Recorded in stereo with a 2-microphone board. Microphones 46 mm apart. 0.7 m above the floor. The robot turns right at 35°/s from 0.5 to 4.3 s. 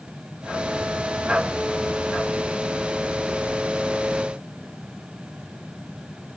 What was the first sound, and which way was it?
Only background noise.